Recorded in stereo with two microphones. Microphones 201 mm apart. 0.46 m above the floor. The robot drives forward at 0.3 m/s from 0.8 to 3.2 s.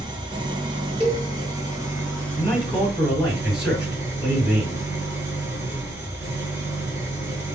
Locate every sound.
0.0 s an engine running: 20° right (ahead or behind), 0.8 m; by 7.5 s 10° right (ahead or behind), 1.5 m
1.0 s a cowbell: 25° right (ahead or behind), 1.4 m
2.4 s a man speaking: 5° right (ahead or behind), 1.9 m